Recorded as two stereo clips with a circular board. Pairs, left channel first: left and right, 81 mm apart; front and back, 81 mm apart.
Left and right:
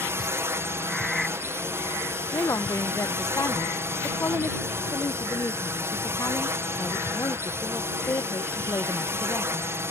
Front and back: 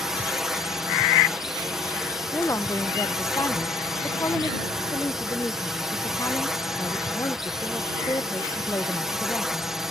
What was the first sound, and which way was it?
A drone, 100° right.